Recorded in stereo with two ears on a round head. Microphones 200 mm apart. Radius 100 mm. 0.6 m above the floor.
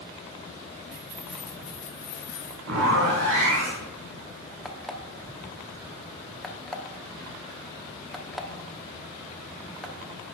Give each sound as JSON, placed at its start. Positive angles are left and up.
{"t": 0.9, "sound": "keys jangling", "side_deg": -30, "distance_m": 0.6}
{"t": 2.7, "sound": "a zipper", "side_deg": -65, "distance_m": 2.5}
{"t": 4.7, "sound": "an alarm clock", "side_deg": 0, "distance_m": 0.5}